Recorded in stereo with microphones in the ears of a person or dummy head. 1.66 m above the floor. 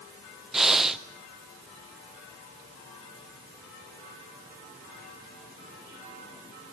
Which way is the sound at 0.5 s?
5° right (ahead or behind).